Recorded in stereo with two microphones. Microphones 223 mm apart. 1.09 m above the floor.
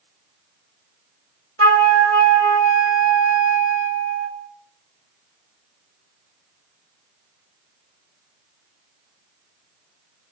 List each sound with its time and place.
1.6 s a flute: 80° right, 1.9 m